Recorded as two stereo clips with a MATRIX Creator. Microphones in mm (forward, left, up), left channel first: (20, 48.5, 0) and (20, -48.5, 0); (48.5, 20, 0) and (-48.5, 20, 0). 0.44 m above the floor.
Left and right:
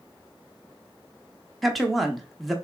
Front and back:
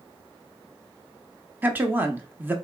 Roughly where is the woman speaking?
Behind.